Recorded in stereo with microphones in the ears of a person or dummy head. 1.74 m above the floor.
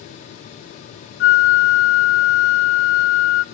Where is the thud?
I don't hear a thud.